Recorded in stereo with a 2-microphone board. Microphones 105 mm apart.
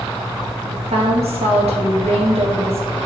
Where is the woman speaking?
75° right (ahead or behind), 2 m.